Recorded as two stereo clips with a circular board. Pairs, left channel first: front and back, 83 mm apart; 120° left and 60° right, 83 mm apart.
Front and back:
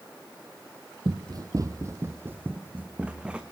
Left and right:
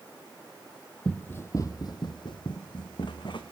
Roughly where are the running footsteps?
Behind.